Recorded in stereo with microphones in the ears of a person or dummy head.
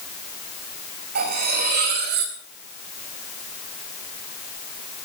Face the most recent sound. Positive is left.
turn(degrees=-55)  # may be behind; listen again after turning